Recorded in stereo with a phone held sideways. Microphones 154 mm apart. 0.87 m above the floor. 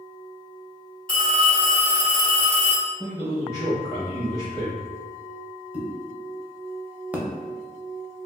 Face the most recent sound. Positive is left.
turn(degrees=-10)  # may be behind; listen again after turning